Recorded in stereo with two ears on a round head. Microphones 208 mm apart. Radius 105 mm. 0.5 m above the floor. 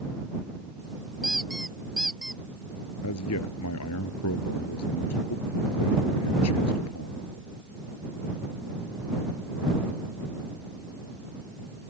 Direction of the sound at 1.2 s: Centre (ahead or behind).